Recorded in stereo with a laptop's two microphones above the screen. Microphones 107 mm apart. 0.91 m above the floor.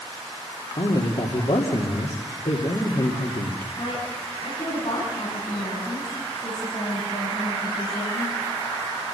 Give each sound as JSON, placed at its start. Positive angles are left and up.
{"t": 0.8, "sound": "a man speaking", "side_deg": 70, "distance_m": 2.5}
{"t": 3.8, "sound": "a woman speaking", "side_deg": 70, "distance_m": 9.5}